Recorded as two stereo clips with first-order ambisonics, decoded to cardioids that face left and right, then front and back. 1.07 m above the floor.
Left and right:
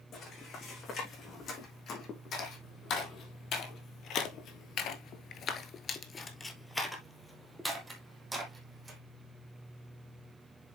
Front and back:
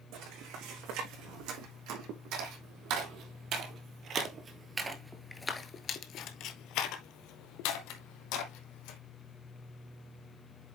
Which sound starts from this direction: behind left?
Footsteps, at 0.1 s.